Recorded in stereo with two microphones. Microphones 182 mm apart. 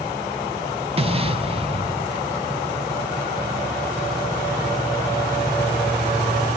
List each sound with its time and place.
1.0 s an explosion: 35° right (ahead or behind), 1.2 m